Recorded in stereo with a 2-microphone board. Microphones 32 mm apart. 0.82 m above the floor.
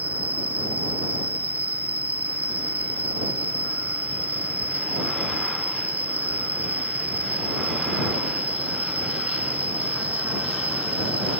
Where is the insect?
65° right (ahead or behind).